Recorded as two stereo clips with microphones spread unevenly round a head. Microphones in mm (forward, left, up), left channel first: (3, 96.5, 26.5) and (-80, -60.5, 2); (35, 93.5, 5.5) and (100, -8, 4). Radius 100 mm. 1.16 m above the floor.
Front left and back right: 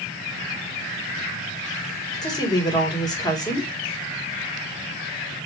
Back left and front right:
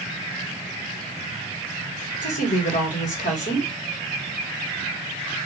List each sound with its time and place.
2.2 s a woman speaking: 135° left, 1.7 m